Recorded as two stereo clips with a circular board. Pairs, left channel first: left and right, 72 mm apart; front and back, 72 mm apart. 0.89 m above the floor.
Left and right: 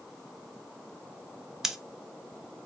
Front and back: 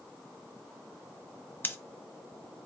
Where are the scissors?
15° right, 0.6 m.